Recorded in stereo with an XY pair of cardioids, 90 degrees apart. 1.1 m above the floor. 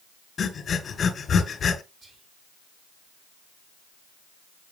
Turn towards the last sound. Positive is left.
turn(degrees=-50)